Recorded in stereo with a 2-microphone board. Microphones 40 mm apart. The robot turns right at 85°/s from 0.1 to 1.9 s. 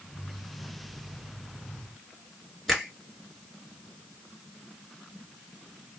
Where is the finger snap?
Centre (ahead or behind), 1.7 m.